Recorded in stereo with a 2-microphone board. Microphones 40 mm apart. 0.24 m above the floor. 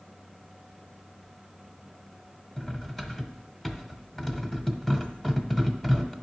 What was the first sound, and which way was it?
Cutlery clinking, 10° left (ahead or behind).